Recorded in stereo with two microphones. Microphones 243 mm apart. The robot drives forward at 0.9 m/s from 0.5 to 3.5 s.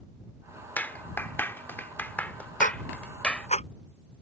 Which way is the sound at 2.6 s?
35° left (ahead or behind).